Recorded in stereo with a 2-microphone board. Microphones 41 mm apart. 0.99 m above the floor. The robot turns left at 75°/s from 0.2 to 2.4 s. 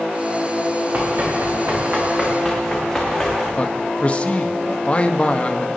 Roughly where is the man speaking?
Left.